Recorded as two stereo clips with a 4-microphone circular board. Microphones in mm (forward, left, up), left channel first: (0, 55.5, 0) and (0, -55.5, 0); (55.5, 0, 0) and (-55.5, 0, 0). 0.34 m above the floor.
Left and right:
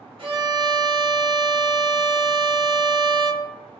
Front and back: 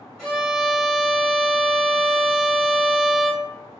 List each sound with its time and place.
0.2 s a violin: 85° right, 1.1 m